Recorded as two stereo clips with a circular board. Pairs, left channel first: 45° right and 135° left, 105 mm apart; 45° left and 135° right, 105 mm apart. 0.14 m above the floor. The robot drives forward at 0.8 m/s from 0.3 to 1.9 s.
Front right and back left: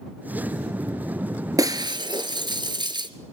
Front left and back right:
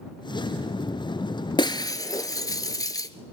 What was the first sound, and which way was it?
Breaking glass, 80° left.